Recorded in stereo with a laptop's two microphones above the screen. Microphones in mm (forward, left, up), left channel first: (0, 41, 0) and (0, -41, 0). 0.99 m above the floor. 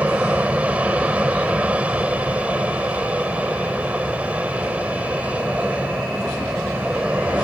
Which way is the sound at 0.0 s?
15° right (ahead or behind).